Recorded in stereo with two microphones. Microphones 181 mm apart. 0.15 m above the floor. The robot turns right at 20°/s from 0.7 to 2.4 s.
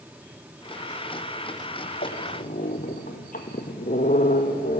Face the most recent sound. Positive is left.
turn(degrees=50)  # may be behind; listen again after turning